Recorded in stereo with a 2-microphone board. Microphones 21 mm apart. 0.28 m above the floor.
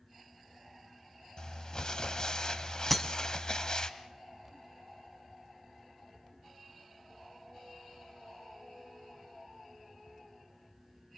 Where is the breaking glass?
10° left (ahead or behind), 1.4 m.